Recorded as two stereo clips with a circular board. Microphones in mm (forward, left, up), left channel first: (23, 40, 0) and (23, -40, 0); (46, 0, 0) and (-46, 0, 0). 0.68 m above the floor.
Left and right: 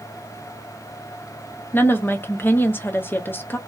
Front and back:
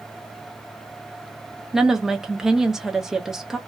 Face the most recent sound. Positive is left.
turn(degrees=100)